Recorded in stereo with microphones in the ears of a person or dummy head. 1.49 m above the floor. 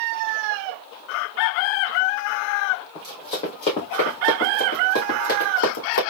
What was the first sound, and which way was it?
Running footsteps, 20° left (ahead or behind).